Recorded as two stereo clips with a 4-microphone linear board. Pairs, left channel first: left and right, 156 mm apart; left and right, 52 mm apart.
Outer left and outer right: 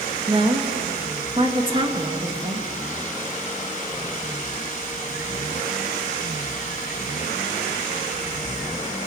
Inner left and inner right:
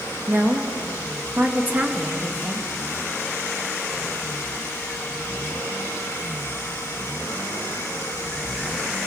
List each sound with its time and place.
0.3 s a woman speaking: 35° right (ahead or behind), 2 m